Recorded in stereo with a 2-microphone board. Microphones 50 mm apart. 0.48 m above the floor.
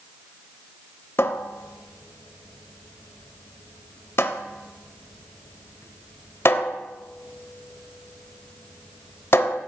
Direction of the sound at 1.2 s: 55° left (ahead or behind).